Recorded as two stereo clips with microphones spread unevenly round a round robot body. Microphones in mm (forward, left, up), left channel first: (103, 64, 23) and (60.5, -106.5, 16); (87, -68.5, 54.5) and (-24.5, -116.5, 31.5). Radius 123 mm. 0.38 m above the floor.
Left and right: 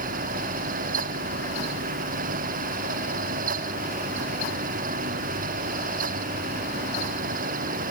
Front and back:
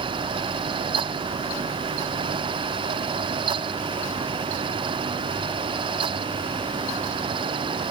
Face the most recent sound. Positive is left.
No sound to turn to.